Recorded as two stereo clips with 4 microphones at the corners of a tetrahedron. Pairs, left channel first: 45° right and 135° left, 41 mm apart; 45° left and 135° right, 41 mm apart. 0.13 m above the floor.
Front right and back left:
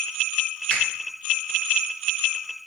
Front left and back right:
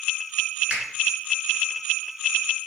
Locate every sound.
0.7 s a finger snap: 95° right, 1.6 m